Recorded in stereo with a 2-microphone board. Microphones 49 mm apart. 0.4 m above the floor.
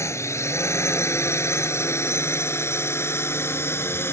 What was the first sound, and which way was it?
A drone, 70° left (ahead or behind).